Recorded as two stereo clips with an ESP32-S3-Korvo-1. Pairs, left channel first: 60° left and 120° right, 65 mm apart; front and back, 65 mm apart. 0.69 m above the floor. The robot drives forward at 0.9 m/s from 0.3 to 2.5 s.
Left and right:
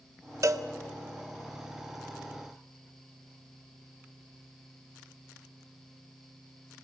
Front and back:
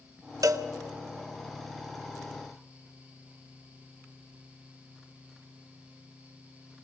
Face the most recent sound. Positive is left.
turn(degrees=-175)